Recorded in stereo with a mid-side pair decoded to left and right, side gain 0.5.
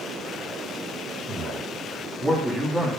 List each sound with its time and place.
1.3 s a man speaking: 30° right, 2.5 m; by 2.9 s 5° right, 2 m